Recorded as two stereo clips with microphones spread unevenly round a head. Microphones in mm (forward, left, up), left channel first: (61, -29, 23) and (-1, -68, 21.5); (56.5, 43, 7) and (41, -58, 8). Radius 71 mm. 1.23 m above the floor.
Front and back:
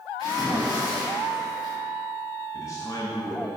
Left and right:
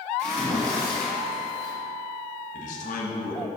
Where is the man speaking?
105° left, 1.1 m.